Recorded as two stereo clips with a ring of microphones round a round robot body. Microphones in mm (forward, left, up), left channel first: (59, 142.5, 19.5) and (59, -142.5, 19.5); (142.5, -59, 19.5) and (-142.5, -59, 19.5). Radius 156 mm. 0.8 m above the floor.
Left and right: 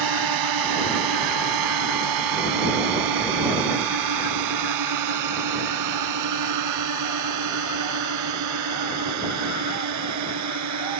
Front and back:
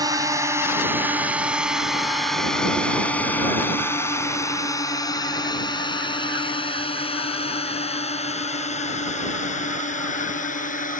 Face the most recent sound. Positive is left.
turn(degrees=-65)